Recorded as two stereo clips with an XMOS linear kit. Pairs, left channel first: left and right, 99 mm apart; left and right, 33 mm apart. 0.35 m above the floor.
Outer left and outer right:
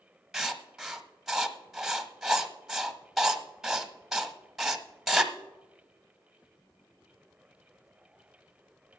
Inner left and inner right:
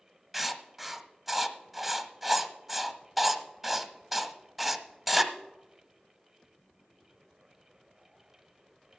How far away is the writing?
About 0.8 m.